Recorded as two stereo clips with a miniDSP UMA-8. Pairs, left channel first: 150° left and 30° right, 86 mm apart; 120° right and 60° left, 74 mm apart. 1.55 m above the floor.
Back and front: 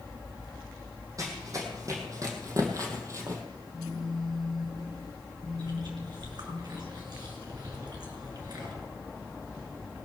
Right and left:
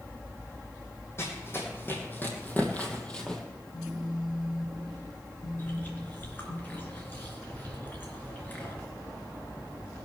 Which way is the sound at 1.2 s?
70° right.